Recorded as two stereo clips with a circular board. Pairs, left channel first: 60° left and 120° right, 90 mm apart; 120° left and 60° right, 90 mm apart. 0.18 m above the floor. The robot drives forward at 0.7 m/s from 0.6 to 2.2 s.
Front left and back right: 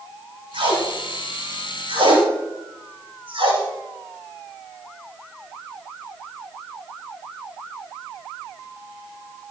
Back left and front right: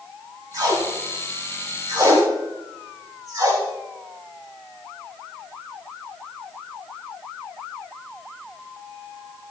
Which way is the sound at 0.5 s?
110° right.